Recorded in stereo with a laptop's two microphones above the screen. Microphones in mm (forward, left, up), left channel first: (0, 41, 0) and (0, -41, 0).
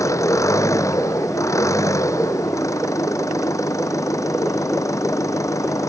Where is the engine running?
40° left (ahead or behind).